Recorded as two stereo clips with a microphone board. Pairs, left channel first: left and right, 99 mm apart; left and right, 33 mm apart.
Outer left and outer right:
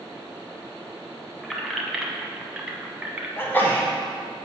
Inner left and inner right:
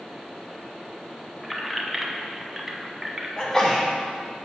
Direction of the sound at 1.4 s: Centre (ahead or behind).